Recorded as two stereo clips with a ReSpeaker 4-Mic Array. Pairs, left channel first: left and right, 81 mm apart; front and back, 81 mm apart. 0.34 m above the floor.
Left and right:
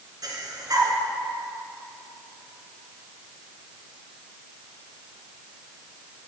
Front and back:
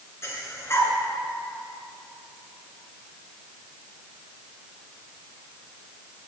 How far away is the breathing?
About 2 m.